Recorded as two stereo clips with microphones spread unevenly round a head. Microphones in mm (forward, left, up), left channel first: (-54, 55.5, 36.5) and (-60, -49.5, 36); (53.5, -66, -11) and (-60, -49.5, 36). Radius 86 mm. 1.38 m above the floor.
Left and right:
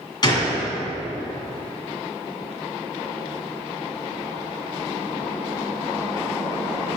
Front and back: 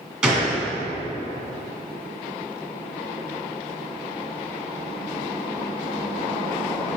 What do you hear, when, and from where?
0.2 s a gunshot: 115° left, 1.7 m